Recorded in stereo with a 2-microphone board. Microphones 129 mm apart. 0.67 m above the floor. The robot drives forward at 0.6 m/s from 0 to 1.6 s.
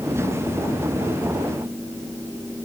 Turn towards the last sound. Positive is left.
No sound to turn to.